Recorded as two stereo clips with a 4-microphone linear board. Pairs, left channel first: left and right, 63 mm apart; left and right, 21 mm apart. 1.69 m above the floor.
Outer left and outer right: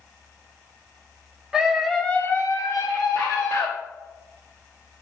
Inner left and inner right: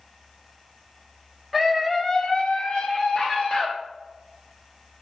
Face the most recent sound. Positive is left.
turn(degrees=55)  # may be behind; listen again after turning